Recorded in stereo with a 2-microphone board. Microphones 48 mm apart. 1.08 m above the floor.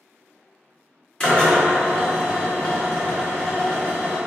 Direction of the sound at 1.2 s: 20° left (ahead or behind).